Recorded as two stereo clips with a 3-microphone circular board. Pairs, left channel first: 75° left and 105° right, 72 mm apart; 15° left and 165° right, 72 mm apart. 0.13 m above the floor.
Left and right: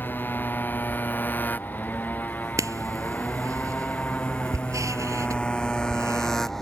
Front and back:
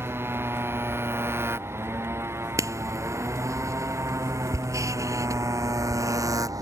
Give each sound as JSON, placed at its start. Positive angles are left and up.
{"t": 0.0, "sound": "a motorcycle", "azimuth_deg": 140}
{"t": 2.6, "sound": "writing", "azimuth_deg": -135}